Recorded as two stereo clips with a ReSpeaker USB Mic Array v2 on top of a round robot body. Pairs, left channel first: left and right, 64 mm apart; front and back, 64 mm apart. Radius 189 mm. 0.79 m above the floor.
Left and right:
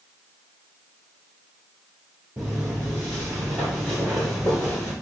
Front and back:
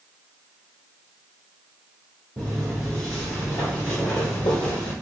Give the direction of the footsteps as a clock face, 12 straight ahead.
5 o'clock.